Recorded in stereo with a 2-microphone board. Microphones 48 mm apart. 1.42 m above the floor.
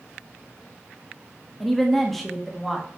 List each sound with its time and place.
1.6 s a woman speaking: 5° left (ahead or behind), 1.8 m